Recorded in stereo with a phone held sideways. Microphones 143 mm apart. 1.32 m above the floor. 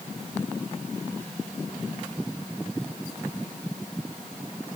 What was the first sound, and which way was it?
Only background noise.